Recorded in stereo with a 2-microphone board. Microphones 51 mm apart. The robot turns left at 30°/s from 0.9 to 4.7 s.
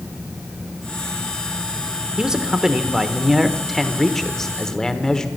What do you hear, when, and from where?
2.2 s a man speaking: 15° right (ahead or behind), 1.0 m; by 5.3 s 10° left (ahead or behind), 1.0 m